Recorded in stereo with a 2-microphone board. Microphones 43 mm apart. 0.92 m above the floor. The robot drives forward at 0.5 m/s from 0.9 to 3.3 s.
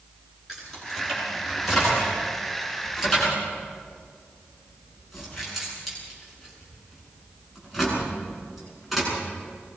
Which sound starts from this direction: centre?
Keys jangling, at 0.5 s.